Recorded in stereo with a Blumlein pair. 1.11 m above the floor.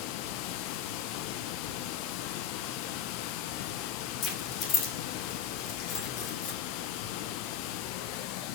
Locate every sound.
0.0 s running water: 45° left, 0.8 m
4.2 s keys jangling: 35° left, 2.5 m